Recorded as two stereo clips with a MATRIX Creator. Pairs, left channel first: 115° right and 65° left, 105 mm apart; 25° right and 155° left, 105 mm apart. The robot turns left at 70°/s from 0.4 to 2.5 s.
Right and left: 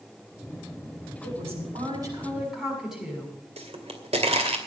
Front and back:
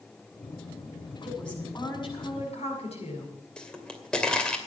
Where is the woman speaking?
75° left, 6.5 m; by 3.3 s 15° right, 6.5 m.